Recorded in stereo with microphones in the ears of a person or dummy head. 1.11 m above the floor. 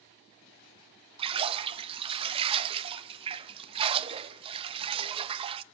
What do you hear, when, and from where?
1.2 s a splash: 35° right (ahead or behind), 0.8 m